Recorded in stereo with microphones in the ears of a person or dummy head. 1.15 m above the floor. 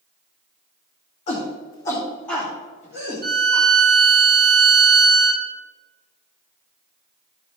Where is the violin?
50° right (ahead or behind), 1.4 m.